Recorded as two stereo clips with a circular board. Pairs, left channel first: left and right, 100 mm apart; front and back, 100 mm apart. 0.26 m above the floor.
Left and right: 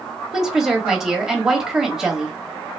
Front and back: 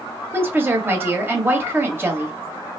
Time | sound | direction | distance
0.3 | a woman speaking | 170° right | 1.0 m